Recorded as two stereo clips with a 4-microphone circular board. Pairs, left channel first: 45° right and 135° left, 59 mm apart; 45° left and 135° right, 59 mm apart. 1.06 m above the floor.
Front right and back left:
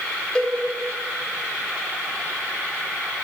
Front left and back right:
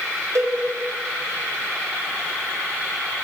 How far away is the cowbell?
About 0.9 m.